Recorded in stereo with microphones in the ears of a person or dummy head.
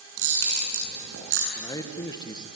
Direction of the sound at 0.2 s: 70° right (ahead or behind).